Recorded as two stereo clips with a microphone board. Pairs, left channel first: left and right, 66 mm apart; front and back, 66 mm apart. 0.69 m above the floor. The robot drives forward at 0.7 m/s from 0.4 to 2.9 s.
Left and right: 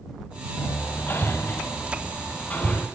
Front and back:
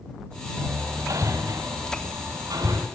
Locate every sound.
0.6 s hammering: 140° left, 1.6 m; by 2.9 s 160° left, 3 m